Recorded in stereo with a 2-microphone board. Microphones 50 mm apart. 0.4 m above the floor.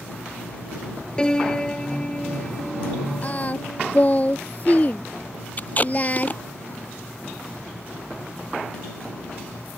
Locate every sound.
1.2 s a piano: 15° left (ahead or behind)
3.2 s singing: 35° left (ahead or behind)
5.6 s tape being pulled: 35° left (ahead or behind)